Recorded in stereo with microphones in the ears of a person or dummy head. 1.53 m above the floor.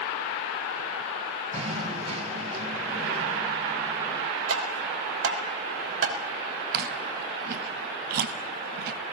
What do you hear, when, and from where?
1.5 s knocking: 35° right (ahead or behind), 1.7 m
4.5 s tapping: 75° right (ahead or behind), 3 m
6.7 s chewing: 55° right (ahead or behind), 1.9 m